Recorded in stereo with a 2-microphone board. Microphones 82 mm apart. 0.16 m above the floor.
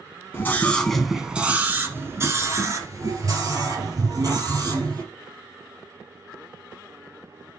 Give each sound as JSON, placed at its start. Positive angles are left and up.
{"t": 0.3, "sound": "a scream", "side_deg": 30, "distance_m": 1.3}